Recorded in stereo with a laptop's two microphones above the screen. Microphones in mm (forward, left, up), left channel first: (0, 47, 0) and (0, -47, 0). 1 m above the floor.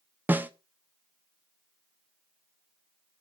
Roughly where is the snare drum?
Centre.